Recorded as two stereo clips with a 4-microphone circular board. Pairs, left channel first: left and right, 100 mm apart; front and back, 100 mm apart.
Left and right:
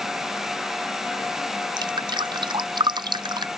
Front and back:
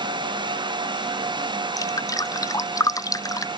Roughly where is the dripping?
Ahead right.